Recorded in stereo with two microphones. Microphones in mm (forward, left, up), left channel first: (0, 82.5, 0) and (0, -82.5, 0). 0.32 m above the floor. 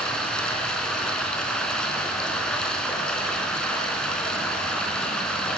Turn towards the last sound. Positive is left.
turn(degrees=5)  # may be behind; listen again after turning